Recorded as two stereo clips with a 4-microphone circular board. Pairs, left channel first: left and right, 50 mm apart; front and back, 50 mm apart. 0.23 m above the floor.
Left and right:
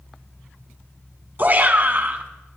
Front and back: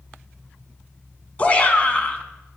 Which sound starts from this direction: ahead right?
A shout, at 1.4 s.